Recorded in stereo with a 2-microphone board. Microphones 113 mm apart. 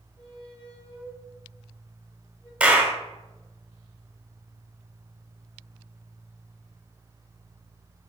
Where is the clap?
10° right (ahead or behind), 1.3 m.